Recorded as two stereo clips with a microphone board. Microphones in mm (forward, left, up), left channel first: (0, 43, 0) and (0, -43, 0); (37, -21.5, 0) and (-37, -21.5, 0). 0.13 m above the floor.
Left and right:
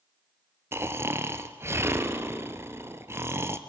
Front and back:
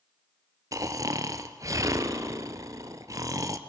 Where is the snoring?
145° right, 1.1 m.